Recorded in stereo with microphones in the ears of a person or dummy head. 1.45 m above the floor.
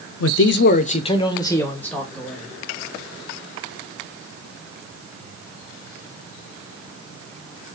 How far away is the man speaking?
About 0.6 m.